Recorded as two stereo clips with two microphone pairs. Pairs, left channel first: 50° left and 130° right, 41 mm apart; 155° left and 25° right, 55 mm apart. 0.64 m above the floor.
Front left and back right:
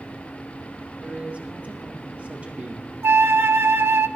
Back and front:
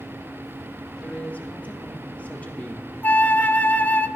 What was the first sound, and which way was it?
A man speaking, 160° right.